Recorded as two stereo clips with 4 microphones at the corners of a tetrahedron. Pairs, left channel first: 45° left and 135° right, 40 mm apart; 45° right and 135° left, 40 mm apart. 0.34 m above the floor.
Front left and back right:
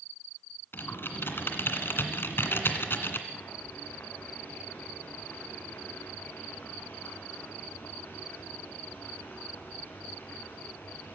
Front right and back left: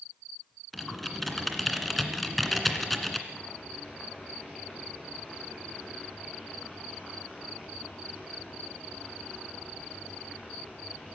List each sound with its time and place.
0.7 s typing on a keyboard: 40° left, 2 m
3.3 s boiling: 25° left, 5.5 m